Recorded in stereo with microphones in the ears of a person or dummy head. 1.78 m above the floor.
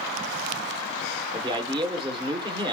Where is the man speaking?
20° right (ahead or behind), 1.2 m.